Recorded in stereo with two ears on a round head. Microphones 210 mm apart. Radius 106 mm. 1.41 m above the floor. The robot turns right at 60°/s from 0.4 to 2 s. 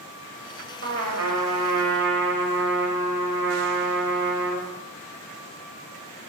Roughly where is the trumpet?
Behind right.